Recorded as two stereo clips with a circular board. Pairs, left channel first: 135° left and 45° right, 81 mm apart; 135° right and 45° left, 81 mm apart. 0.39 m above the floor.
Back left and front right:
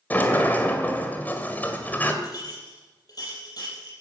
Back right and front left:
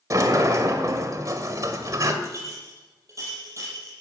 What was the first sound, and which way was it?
A sliding door, 75° left.